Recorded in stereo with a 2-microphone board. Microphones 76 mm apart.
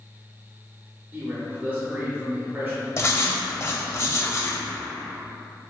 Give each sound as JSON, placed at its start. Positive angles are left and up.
{"t": 1.1, "sound": "a man speaking", "side_deg": -25, "distance_m": 0.8}
{"t": 3.0, "sound": "writing", "side_deg": 40, "distance_m": 0.6}